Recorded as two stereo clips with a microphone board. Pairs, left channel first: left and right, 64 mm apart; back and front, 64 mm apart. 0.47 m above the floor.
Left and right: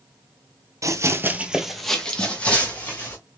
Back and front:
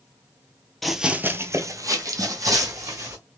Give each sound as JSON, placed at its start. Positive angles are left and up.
{"t": 0.8, "sound": "running footsteps", "azimuth_deg": -95, "distance_m": 0.7}